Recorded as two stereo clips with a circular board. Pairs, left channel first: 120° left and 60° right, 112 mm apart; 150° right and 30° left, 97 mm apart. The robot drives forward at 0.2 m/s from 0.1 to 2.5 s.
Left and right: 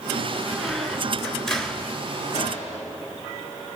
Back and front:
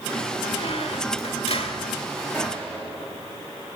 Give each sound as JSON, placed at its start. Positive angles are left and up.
{"t": 0.5, "sound": "a squeak", "azimuth_deg": -150, "distance_m": 1.0}
{"t": 2.3, "sound": "a gunshot", "azimuth_deg": 135, "distance_m": 5.5}